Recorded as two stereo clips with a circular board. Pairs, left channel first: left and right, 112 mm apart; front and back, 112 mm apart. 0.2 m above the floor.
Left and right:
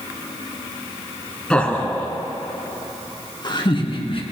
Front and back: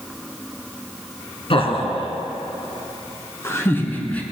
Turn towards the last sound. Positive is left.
turn(degrees=75)